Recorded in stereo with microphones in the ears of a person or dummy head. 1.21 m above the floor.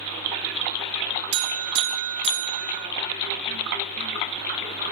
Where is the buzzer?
55° right (ahead or behind), 1.2 m.